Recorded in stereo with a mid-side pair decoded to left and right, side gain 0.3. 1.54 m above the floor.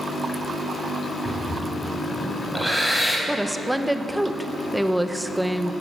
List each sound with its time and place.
1.2 s breathing: 5° left, 6 m
3.3 s a woman speaking: 5° right, 1.2 m